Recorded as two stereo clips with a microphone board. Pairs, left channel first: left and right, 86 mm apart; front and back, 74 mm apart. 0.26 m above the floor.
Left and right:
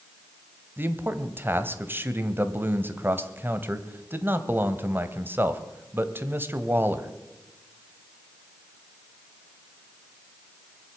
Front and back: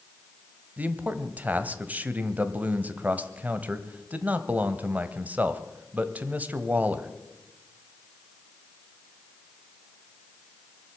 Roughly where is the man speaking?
Behind right.